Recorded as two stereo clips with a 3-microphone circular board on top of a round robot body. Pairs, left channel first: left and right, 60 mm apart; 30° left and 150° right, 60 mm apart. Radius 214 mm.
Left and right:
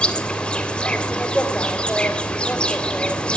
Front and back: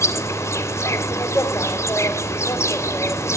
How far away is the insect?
About 2.5 m.